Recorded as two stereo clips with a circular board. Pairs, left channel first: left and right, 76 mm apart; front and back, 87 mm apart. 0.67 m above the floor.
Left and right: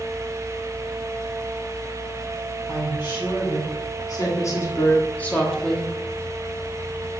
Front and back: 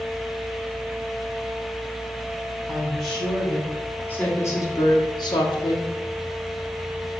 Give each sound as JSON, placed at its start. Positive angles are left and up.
{"t": 2.7, "sound": "a woman speaking", "azimuth_deg": 95, "distance_m": 2.5}